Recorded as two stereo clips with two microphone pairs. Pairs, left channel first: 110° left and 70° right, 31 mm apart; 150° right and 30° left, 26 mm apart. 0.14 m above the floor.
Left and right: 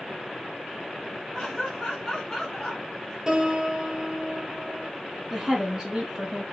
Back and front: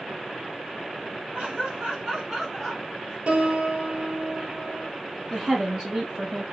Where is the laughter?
35° left, 2.0 m; by 3.2 s 160° left, 1.4 m.